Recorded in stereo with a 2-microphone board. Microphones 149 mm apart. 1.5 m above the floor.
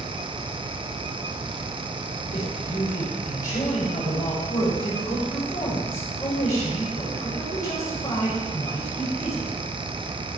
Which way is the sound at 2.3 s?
55° left (ahead or behind).